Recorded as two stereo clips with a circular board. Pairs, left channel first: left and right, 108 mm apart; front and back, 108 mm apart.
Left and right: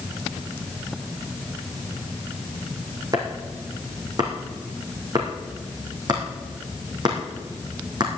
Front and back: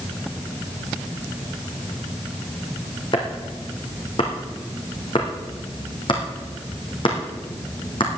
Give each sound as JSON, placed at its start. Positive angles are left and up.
{"t": 3.1, "sound": "chopping", "azimuth_deg": -40, "distance_m": 3.5}